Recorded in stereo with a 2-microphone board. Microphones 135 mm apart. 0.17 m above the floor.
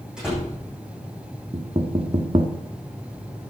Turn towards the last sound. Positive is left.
turn(degrees=-45)  # may be behind; listen again after turning